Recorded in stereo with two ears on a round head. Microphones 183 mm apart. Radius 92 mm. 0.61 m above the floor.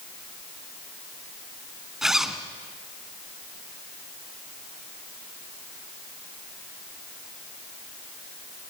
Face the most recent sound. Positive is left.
turn(degrees=0)  # may be behind; listen again after turning